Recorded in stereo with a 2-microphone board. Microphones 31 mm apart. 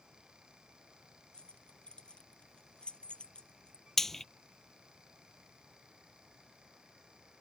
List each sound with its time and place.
1.3 s keys jangling: 30° left (ahead or behind)
4.0 s frying: 15° left (ahead or behind)